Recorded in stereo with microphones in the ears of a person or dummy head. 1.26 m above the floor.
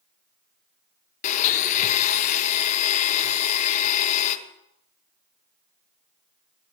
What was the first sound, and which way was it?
A blender, 40° left (ahead or behind).